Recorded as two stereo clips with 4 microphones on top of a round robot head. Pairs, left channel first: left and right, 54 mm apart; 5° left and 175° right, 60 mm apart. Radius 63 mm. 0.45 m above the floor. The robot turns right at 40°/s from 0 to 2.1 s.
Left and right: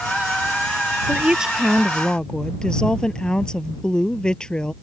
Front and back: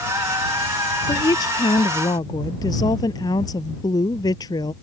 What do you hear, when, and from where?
1.1 s a woman speaking: 25° right; by 4.7 s 15° left